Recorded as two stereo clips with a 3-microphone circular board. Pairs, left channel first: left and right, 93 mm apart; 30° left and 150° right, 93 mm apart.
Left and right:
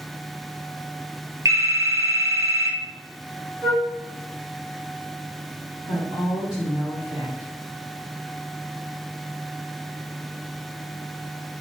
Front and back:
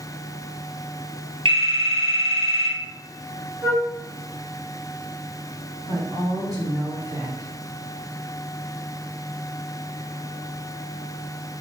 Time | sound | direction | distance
1.4 | a phone ringing | 145° right | 0.6 m
3.6 | a flute | 120° right | 0.7 m
5.8 | a woman speaking | 95° right | 1.9 m